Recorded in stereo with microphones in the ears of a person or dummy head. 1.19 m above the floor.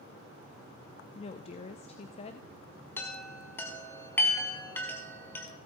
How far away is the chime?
About 1.6 m.